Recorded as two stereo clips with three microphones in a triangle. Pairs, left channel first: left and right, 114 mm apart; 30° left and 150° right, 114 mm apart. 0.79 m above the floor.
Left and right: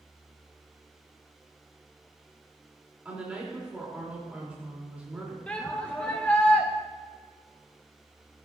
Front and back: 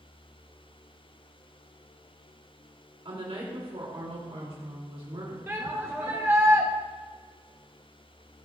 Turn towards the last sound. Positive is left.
turn(degrees=160)